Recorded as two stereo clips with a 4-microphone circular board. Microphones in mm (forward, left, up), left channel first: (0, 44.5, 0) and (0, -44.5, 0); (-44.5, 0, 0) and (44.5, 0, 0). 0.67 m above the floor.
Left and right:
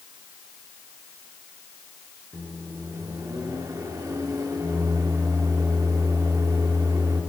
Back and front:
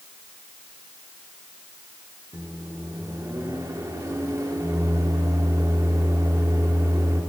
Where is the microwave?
50° right, 1.2 m.